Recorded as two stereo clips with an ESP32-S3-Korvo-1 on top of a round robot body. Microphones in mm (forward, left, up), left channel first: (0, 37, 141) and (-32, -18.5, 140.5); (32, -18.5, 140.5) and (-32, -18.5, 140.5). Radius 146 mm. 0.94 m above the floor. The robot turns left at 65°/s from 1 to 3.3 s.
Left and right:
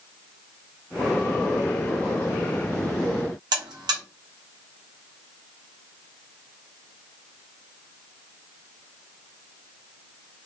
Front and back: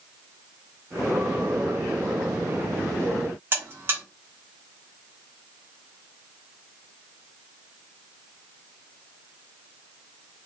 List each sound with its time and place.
3.5 s a buzzer: 125° right, 0.8 m